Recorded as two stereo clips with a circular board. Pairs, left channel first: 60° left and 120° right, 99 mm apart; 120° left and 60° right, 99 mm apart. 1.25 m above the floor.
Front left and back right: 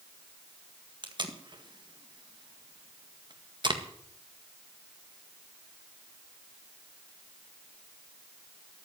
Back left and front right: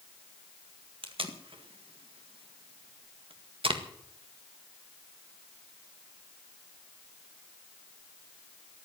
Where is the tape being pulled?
80° right, 1.8 m.